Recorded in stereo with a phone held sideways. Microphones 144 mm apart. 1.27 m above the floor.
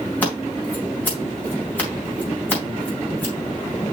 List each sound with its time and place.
0.2 s scissors: 15° left (ahead or behind), 4 m